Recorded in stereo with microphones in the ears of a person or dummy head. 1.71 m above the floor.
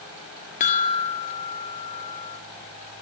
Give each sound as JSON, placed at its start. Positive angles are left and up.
{"t": 0.6, "sound": "a chime", "side_deg": 35, "distance_m": 1.8}